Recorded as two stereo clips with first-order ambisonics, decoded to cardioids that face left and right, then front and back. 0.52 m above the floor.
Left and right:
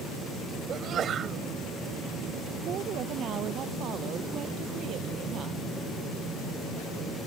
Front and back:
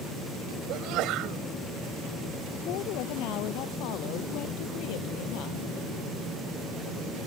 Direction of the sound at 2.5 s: 35° right.